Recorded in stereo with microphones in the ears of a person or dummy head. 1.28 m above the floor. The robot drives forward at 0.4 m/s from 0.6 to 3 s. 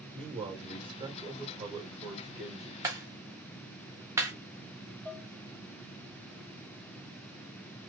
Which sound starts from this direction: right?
A man speaking, at 0.1 s.